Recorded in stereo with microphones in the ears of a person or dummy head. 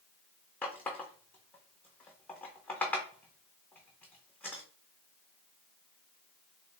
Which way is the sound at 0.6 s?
5° left (ahead or behind).